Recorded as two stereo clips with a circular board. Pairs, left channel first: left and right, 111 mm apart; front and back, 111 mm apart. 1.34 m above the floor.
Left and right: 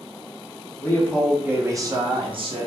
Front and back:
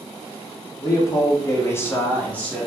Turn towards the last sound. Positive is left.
turn(degrees=-80)